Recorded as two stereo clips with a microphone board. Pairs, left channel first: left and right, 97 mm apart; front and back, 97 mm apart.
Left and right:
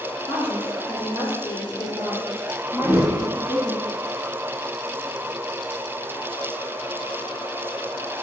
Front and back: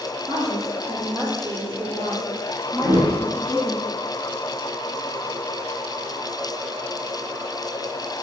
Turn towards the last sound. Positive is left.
turn(degrees=180)